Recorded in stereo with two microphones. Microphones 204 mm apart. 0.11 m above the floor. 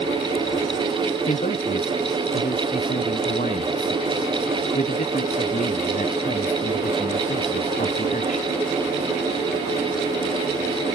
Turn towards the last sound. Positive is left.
turn(degrees=40)  # may be behind; listen again after turning